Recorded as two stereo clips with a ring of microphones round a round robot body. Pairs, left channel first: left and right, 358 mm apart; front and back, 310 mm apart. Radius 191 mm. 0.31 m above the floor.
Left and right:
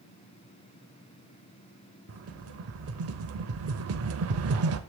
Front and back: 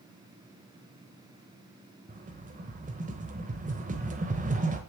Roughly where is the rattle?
Behind right.